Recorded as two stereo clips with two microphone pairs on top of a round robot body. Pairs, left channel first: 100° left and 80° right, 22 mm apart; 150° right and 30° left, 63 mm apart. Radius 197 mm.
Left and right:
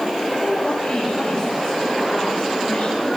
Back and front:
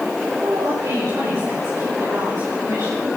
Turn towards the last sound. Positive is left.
turn(degrees=70)